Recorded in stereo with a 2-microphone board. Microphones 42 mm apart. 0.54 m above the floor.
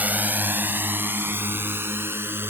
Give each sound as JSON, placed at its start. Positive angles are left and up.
{"t": 0.0, "sound": "a drone", "side_deg": -40}